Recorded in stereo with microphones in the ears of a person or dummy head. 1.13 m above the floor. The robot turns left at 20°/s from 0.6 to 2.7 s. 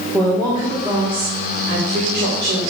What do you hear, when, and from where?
0.1 s a woman speaking: 20° right, 2.5 m; by 2.6 s 60° right, 2.5 m